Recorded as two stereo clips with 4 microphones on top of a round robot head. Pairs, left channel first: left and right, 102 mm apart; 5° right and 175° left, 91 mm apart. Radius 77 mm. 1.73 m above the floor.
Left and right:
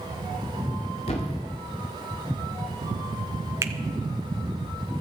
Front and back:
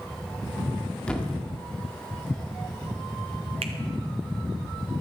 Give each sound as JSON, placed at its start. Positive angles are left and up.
{"t": 1.1, "sound": "a thud", "azimuth_deg": 70, "distance_m": 1.7}
{"t": 3.6, "sound": "a finger snap", "azimuth_deg": -145, "distance_m": 0.7}